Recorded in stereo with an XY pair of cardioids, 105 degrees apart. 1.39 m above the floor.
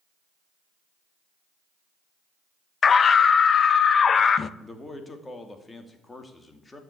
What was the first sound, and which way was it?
A scream, 45° left.